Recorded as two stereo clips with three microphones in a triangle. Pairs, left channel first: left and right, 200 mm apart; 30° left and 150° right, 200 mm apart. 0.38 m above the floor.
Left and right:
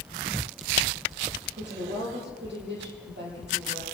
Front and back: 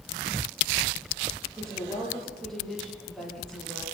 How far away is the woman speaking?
About 10 m.